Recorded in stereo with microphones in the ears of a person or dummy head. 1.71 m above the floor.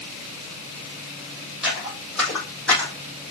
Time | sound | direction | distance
1.6 | footsteps | centre (ahead or behind) | 4 m